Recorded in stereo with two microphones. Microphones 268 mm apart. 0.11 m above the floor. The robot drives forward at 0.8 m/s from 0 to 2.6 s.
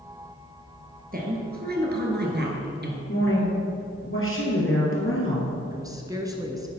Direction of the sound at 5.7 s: 15° right (ahead or behind).